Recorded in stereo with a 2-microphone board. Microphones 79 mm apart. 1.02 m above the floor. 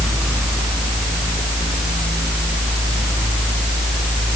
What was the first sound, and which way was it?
Only background noise.